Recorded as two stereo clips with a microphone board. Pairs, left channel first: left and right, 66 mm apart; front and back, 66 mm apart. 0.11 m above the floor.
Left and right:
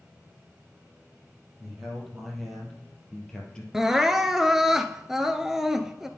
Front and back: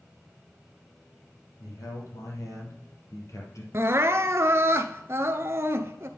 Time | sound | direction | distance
1.6 | a man speaking | 5° right | 4 m
3.7 | crying | 170° right | 0.7 m